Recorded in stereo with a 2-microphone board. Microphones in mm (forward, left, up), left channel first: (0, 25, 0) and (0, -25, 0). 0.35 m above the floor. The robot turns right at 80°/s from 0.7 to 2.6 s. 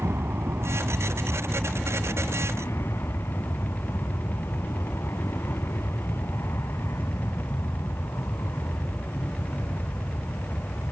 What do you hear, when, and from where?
0.0 s an aircraft: 70° right; by 10.9 s 80° left